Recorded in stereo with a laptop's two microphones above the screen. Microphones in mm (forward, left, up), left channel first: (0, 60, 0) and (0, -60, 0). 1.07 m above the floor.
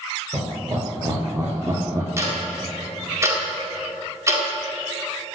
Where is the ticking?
25° right (ahead or behind), 2 m.